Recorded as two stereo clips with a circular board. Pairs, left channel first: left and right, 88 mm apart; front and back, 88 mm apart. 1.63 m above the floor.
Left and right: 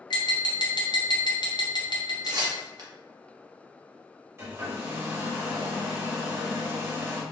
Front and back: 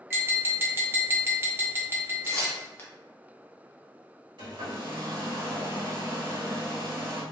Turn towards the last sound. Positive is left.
turn(degrees=-150)